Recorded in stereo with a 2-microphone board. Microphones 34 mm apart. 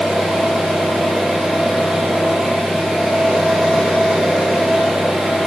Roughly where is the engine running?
Centre.